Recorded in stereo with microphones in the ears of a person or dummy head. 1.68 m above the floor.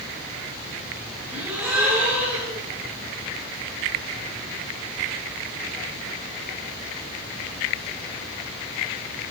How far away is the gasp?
About 6.5 m.